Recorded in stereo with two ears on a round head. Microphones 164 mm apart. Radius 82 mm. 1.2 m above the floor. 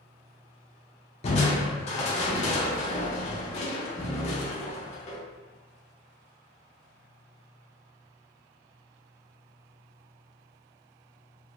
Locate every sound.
1.2 s crushing: 35° left (ahead or behind), 0.7 m